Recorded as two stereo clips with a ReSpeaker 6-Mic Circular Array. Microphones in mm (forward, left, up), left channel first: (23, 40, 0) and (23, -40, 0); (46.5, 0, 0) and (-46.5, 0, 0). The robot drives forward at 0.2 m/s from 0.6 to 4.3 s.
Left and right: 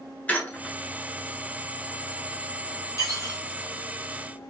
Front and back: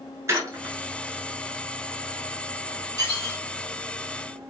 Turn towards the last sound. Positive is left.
turn(degrees=145)